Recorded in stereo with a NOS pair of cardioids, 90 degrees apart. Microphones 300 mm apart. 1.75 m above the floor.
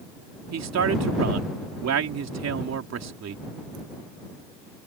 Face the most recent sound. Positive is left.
turn(degrees=-55)